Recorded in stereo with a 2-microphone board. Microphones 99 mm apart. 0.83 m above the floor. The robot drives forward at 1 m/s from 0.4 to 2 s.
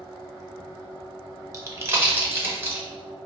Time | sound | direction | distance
1.5 | a pop | 35° right (ahead or behind) | 0.7 m